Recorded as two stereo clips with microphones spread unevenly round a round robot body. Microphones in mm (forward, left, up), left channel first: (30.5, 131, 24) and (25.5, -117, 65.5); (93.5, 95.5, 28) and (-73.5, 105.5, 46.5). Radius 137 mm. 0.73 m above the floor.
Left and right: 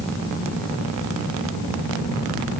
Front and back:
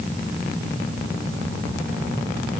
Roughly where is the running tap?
No running tap in this recording.